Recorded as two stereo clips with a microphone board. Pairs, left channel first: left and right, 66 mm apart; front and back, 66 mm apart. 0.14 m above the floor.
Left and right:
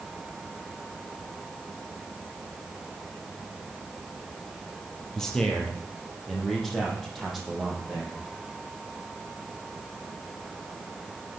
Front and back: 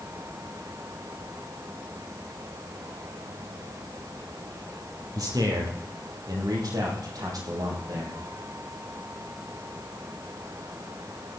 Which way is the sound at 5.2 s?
170° left.